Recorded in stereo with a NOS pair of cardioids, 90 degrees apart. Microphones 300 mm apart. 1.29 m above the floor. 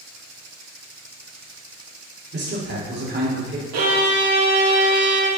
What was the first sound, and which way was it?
A man speaking, 35° right.